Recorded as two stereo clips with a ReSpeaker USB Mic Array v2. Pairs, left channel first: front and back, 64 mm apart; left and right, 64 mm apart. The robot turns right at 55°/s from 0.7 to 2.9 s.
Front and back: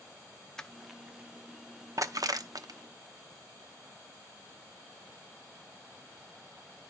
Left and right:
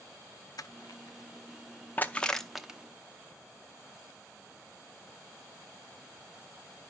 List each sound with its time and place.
0.6 s crushing: 80° left, 0.6 m; by 2.8 s 165° right, 0.6 m